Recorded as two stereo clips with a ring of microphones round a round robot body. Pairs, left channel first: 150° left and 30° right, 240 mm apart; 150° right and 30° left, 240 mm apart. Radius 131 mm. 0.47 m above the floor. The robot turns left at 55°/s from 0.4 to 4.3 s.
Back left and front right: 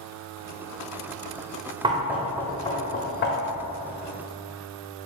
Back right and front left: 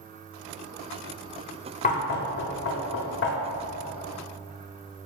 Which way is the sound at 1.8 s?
95° right.